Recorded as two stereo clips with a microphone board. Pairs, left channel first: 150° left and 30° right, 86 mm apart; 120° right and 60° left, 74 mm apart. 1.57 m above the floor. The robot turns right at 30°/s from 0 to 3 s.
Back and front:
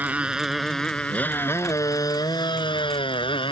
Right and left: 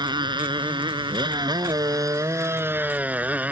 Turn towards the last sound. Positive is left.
turn(degrees=130)